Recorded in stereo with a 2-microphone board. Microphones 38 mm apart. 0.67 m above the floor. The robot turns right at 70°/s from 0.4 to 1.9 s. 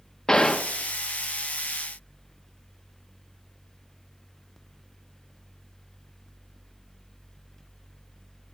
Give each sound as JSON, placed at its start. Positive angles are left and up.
{"t": 0.3, "sound": "a gunshot", "side_deg": 20, "distance_m": 0.7}